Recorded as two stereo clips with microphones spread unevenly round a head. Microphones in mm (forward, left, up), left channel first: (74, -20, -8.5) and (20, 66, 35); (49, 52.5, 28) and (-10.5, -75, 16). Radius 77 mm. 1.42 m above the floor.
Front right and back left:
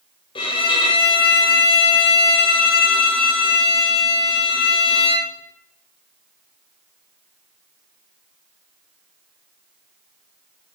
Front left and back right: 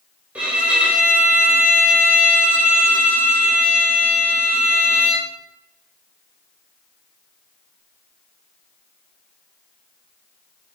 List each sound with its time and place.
0.3 s a violin: 35° right, 1.2 m